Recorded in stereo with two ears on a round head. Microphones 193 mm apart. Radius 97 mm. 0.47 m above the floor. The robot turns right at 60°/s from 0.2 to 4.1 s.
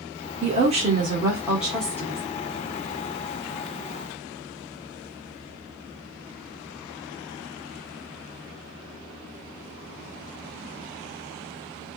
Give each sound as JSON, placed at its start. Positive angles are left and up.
{"t": 0.4, "sound": "a woman speaking", "azimuth_deg": -80, "distance_m": 1.3}